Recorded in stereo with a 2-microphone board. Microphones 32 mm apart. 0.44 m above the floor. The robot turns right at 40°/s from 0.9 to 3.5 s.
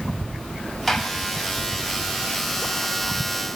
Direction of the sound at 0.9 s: 5° left (ahead or behind).